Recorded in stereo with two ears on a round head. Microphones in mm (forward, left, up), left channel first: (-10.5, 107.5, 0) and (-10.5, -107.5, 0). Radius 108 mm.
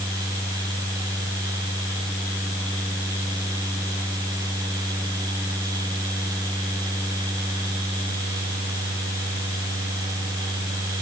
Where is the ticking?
No ticking in this recording.